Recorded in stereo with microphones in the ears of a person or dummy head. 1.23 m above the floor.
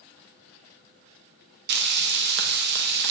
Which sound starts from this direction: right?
Frying, at 1.7 s.